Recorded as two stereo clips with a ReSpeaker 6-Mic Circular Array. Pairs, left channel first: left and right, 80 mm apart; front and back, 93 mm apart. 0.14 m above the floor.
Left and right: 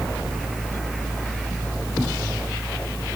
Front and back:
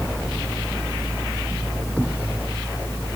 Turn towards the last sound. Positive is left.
No sound to turn to.